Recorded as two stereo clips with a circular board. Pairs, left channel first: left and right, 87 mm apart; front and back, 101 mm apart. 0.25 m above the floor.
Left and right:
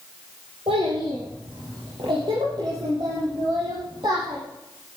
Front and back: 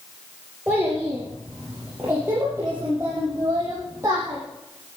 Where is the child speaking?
105° right, 4 m; by 4.4 s 120° right, 7.5 m.